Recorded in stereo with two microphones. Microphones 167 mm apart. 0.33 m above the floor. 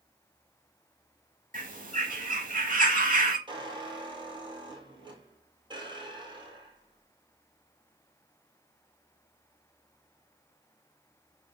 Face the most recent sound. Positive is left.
turn(degrees=-30)  # may be behind; listen again after turning